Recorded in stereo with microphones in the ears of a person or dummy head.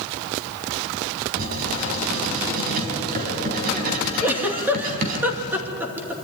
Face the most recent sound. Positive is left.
turn(degrees=-10)  # may be behind; listen again after turning